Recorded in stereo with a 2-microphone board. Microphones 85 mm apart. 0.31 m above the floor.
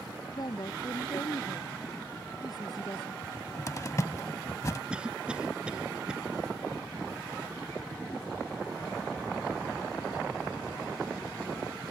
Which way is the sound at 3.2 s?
35° left (ahead or behind).